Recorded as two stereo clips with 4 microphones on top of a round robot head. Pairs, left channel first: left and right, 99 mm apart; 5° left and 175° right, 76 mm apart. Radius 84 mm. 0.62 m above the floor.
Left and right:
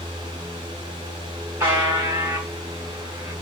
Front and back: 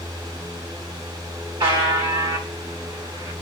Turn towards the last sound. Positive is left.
turn(degrees=-155)